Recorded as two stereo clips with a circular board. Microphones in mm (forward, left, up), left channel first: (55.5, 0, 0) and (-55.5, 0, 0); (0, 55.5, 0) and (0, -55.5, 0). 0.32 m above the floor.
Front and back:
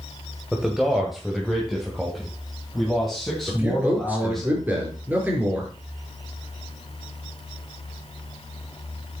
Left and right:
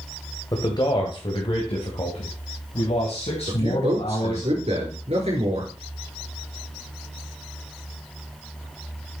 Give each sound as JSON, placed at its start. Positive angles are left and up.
{"t": 0.5, "sound": "a man speaking", "azimuth_deg": 95, "distance_m": 1.8}
{"t": 3.5, "sound": "a man speaking", "azimuth_deg": -110, "distance_m": 4.5}